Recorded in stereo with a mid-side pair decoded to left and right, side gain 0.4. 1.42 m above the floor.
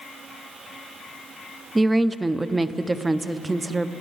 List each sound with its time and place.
1.8 s a woman speaking: 20° right, 0.6 m